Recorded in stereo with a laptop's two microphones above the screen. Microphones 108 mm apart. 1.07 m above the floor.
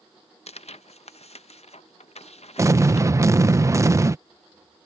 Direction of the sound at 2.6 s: 30° right (ahead or behind).